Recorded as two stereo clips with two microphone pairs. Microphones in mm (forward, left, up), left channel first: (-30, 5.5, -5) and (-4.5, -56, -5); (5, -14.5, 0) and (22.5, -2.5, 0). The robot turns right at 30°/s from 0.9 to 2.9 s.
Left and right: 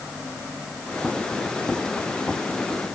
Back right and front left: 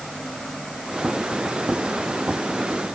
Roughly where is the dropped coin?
I don't hear a dropped coin.